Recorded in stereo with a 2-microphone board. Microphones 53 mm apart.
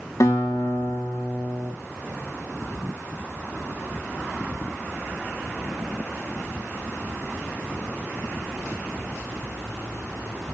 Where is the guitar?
85° left, 6.5 m.